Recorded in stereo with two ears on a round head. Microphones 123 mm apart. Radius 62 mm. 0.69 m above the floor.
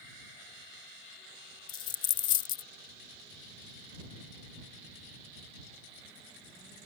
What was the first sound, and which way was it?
A dropped coin, 35° left (ahead or behind).